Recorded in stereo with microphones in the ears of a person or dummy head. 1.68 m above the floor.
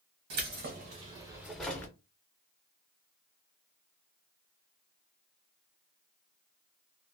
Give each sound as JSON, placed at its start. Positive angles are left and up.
{"t": 0.3, "sound": "keys jangling", "side_deg": -55, "distance_m": 1.0}